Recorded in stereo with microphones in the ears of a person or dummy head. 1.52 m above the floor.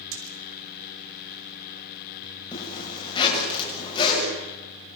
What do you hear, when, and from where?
0.1 s a splash: 85° right, 6 m
2.5 s a zipper: 30° left (ahead or behind), 7.5 m